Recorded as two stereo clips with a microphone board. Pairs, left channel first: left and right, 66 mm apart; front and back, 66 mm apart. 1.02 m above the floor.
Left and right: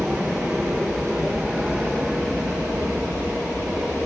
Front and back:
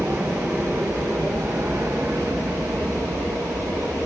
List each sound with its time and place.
0.0 s an aircraft: 165° right; by 4.1 s straight behind